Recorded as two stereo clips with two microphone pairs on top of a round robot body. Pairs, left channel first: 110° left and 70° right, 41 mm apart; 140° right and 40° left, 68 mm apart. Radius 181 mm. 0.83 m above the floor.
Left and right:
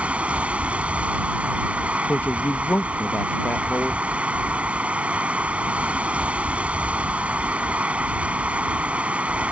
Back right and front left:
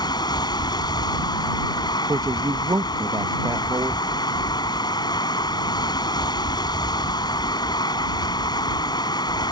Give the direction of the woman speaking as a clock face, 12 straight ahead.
9 o'clock.